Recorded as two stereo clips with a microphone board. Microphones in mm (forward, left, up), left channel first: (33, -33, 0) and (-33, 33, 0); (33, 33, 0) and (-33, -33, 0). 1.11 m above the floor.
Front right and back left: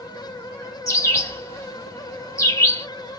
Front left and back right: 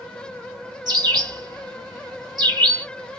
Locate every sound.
0.9 s a bird: 100° right, 1.5 m